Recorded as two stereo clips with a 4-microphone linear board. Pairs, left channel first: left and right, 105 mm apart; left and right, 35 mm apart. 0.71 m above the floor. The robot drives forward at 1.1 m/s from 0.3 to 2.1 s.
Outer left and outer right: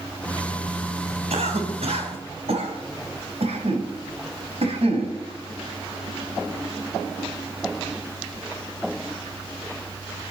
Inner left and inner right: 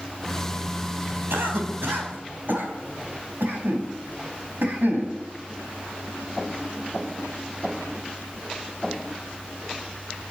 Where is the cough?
85° right, 4 m; by 5.2 s 75° right (ahead or behind), 4.5 m.